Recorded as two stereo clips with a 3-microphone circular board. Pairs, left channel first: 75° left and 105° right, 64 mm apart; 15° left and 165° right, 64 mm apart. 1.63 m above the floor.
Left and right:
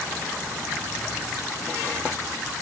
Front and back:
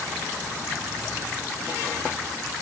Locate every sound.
Only background noise.